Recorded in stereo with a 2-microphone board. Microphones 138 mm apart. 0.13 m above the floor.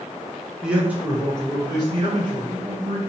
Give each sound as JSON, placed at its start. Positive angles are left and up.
{"t": 0.6, "sound": "a man speaking", "side_deg": -5, "distance_m": 1.1}